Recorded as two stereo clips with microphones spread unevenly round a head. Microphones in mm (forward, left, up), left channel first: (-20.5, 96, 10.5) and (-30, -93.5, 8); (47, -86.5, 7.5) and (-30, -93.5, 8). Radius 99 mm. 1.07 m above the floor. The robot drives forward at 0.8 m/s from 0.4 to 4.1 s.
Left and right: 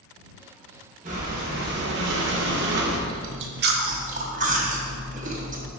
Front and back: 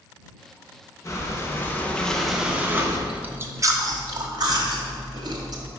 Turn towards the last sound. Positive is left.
turn(degrees=-145)